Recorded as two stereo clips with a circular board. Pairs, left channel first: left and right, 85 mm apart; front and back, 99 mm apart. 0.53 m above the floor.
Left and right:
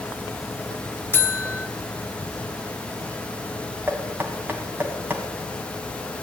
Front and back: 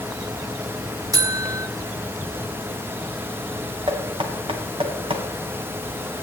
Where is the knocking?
155° right, 2.5 m.